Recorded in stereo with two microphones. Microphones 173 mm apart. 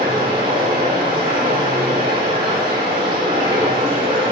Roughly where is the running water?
Right.